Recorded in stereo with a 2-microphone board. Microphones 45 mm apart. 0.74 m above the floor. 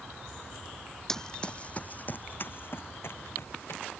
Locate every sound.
1.1 s running footsteps: 10° left (ahead or behind); by 3.8 s 60° left (ahead or behind)